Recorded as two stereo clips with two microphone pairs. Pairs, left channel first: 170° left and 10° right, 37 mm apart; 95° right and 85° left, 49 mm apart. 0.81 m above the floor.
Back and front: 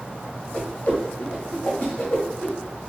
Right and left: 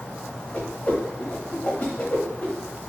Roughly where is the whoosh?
Behind right.